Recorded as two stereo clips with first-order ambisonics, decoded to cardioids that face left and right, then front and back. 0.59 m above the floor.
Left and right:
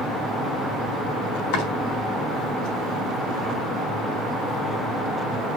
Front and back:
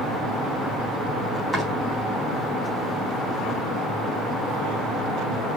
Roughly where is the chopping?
Left.